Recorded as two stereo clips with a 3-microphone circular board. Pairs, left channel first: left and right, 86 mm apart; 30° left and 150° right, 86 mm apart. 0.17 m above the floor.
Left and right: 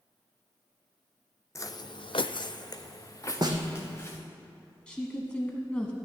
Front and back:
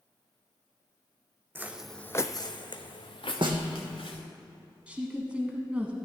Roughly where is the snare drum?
Behind right.